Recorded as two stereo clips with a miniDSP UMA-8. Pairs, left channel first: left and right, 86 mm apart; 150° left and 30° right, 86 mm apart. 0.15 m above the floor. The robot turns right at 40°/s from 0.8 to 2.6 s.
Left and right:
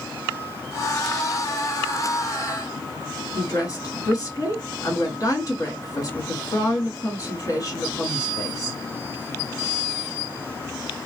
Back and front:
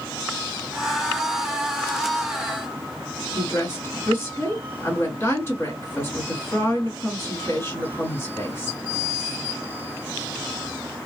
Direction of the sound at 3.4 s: 105° left.